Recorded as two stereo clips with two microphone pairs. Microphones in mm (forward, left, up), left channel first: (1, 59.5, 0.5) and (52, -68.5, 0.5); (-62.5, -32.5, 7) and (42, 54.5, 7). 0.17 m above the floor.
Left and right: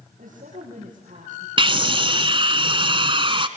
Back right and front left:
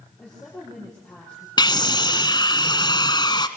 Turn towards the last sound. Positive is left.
turn(degrees=-100)